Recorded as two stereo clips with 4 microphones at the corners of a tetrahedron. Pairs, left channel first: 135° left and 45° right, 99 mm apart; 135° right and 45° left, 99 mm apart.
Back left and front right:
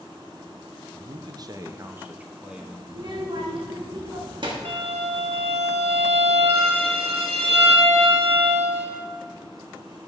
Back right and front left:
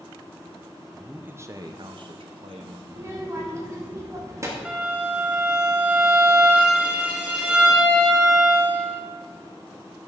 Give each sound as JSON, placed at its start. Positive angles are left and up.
{"t": 0.9, "sound": "a man speaking", "azimuth_deg": -40, "distance_m": 0.6}
{"t": 2.9, "sound": "a child speaking", "azimuth_deg": -15, "distance_m": 1.2}
{"t": 4.7, "sound": "a violin", "azimuth_deg": -35, "distance_m": 1.2}